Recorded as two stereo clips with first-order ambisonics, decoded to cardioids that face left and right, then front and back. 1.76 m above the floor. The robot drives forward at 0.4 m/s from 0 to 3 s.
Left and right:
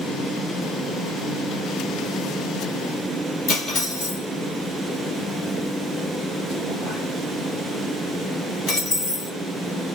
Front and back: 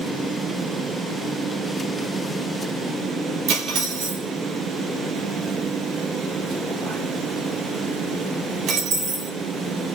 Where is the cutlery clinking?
145° left, 1.4 m.